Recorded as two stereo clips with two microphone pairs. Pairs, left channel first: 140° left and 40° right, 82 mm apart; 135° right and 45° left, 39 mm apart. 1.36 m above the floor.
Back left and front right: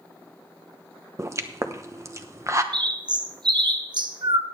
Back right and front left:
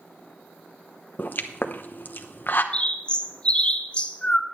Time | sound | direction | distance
1.2 | a pop | 95° right | 0.9 m
2.7 | a bird | 70° right | 0.8 m